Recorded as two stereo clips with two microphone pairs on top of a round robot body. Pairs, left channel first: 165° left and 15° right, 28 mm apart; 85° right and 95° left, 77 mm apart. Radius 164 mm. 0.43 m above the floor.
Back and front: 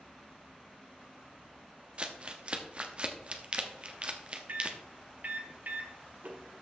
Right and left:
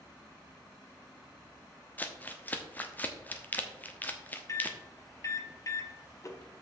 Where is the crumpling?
55° right, 1.4 m.